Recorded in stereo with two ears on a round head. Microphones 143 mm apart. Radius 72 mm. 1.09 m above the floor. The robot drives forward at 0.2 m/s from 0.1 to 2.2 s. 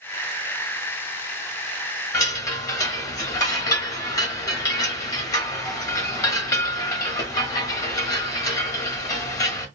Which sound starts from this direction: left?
A chime, at 2.1 s.